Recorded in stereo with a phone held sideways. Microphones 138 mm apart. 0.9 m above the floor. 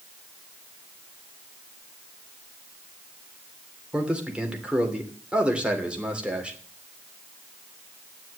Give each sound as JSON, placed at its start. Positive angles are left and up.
{"t": 3.9, "sound": "a man speaking", "side_deg": -10, "distance_m": 3.0}